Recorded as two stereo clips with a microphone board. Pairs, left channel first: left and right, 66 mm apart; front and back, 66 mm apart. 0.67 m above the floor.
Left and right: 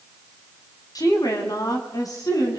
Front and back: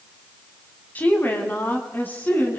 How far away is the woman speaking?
About 4 m.